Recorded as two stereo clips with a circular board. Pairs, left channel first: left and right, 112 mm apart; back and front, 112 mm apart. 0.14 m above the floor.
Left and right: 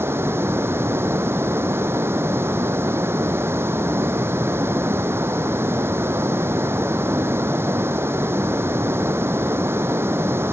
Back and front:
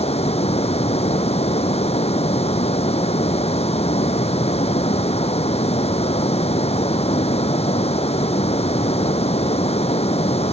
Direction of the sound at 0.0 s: 160° right.